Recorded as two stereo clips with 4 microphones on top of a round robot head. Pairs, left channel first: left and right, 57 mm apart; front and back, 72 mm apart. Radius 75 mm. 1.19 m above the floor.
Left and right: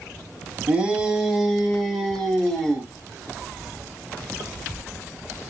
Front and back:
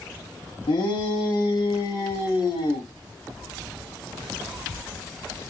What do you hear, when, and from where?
0.7 s a shout: 20° right, 1.1 m; by 2.9 s straight ahead, 2.5 m